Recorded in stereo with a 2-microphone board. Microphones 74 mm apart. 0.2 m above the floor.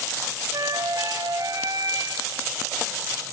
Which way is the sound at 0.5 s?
65° right (ahead or behind).